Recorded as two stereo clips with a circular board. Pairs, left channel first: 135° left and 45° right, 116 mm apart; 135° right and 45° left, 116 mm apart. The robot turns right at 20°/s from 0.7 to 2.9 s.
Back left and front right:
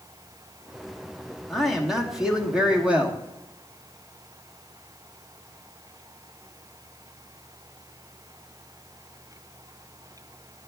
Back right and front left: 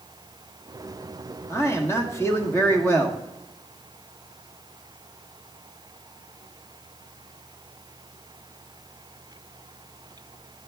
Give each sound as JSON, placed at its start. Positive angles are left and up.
{"t": 1.5, "sound": "a man speaking", "azimuth_deg": -135, "distance_m": 1.3}